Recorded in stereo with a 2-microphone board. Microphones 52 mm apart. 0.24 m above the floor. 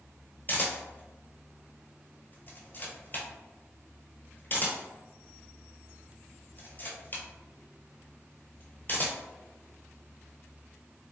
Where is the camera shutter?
40° left (ahead or behind), 0.9 m.